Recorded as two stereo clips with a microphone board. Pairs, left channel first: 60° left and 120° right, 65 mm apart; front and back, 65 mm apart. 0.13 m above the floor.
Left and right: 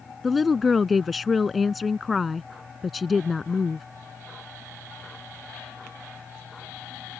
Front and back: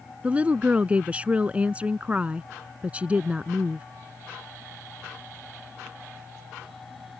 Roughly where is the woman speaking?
Behind left.